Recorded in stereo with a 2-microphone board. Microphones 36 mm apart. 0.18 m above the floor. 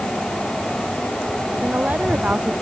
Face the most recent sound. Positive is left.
turn(degrees=-45)  # may be behind; listen again after turning